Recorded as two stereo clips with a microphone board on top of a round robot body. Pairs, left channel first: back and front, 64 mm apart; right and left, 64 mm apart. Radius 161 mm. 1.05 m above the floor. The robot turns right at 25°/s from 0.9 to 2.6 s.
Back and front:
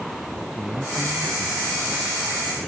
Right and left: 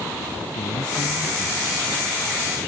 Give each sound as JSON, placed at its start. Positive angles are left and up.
{"t": 0.5, "sound": "a man speaking", "azimuth_deg": -85}